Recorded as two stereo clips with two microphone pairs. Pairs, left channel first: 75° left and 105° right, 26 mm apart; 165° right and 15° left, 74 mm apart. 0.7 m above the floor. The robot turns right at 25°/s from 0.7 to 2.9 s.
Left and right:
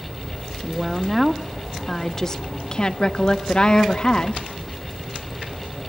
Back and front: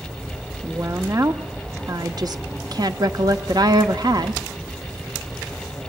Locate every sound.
0.6 s a woman speaking: 30° right, 1.1 m; by 4.4 s 25° left, 1.1 m